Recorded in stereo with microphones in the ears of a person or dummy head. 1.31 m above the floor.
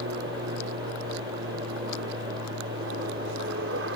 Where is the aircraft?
65° right (ahead or behind).